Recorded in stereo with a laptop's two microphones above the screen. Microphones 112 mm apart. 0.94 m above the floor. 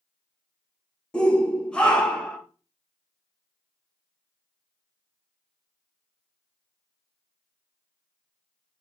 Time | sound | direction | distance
1.1 | a shout | 10° left (ahead or behind) | 0.6 m